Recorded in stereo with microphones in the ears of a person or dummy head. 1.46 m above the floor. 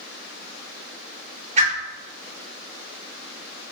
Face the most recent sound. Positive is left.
turn(degrees=-35)  # may be behind; listen again after turning